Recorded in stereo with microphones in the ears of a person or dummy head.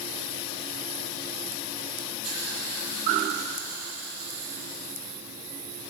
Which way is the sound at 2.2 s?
85° right.